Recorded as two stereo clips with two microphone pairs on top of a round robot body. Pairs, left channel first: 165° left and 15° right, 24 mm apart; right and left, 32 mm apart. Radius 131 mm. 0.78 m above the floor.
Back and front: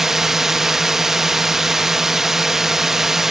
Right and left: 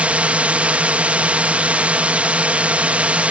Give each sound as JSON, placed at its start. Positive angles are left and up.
{"t": 0.0, "sound": "a drone", "azimuth_deg": 50}